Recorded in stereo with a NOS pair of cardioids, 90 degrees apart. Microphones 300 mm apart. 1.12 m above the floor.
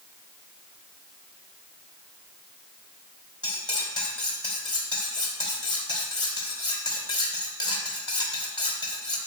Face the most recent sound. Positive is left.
turn(degrees=15)